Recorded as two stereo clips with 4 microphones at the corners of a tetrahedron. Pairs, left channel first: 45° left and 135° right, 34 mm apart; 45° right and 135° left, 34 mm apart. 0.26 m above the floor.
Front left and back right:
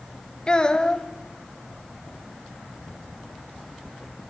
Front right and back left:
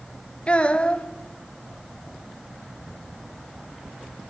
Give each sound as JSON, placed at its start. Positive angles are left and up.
{"t": 0.5, "sound": "a child speaking", "azimuth_deg": -10, "distance_m": 1.2}